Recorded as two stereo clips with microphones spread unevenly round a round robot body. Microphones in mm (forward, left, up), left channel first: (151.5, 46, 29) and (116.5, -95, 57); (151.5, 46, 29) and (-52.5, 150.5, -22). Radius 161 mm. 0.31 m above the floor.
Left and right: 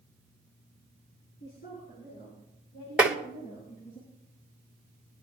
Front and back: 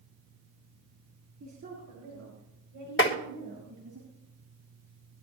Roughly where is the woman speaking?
Behind left.